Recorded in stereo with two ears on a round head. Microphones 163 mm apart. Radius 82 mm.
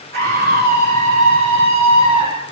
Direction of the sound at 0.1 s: 55° right (ahead or behind).